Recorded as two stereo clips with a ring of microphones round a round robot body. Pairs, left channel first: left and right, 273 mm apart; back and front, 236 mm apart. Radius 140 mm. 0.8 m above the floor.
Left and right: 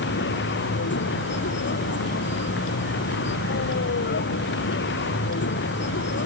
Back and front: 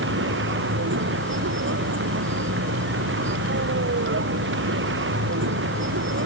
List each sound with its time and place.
0.0 s a vehicle: 40° left